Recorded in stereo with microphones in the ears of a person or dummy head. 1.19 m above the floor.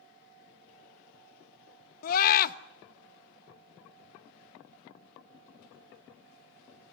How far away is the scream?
About 1.3 m.